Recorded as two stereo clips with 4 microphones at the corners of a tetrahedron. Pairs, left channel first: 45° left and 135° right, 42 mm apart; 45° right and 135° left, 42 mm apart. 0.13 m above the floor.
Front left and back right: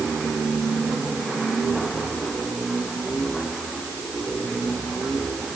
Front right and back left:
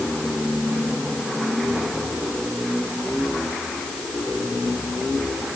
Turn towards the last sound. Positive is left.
No sound to turn to.